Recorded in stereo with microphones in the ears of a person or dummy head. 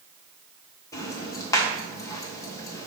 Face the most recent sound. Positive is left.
turn(degrees=20)  # may be behind; listen again after turning